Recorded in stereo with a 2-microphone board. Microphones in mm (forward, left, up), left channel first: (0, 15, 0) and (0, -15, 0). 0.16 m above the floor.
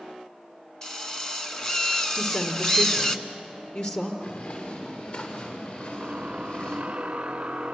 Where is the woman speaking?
45° left (ahead or behind), 3 m.